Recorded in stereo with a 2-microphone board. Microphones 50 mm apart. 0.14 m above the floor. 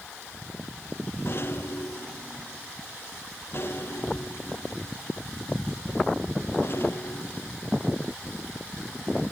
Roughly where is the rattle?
Left.